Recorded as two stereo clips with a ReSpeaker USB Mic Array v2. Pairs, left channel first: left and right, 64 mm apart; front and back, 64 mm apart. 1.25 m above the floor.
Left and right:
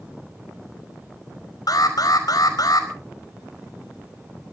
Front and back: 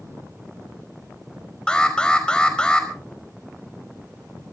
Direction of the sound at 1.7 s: 75° left.